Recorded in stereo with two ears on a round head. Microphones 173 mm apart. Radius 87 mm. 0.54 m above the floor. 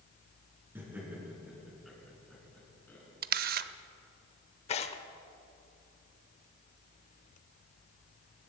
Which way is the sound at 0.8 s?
15° right (ahead or behind).